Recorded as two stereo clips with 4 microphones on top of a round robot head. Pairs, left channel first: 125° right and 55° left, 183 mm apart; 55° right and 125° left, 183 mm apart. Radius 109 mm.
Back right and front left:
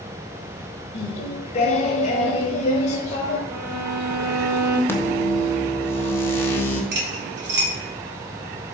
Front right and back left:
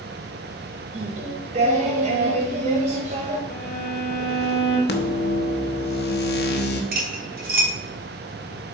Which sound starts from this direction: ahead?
A violin, at 3.5 s.